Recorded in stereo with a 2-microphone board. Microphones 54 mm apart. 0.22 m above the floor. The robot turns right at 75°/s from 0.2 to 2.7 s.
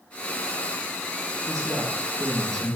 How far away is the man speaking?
About 3.5 m.